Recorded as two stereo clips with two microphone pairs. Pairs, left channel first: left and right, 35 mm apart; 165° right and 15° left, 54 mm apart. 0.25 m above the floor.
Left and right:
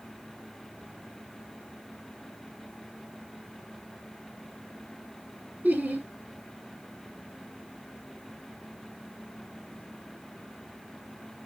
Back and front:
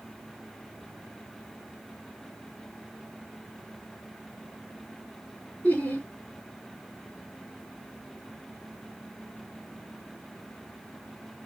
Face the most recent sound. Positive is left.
turn(degrees=-110)